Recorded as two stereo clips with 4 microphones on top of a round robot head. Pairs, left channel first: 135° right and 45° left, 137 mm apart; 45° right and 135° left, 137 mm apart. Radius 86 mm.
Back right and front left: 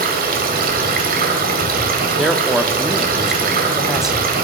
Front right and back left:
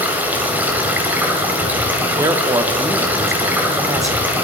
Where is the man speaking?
130° left, 0.7 m.